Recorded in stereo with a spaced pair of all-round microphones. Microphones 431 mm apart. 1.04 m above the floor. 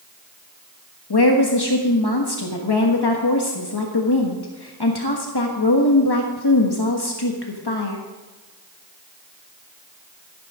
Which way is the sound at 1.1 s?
60° left (ahead or behind).